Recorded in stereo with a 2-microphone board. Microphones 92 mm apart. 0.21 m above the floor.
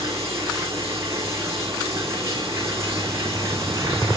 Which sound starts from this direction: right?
Running water, at 0.0 s.